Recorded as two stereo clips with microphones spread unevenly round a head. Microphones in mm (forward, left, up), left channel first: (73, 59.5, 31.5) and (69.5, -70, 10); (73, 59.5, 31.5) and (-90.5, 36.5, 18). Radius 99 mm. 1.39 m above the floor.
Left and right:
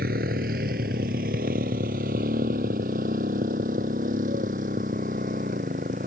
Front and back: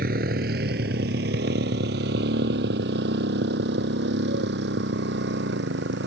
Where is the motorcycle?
125° right; by 6.1 s 140° right.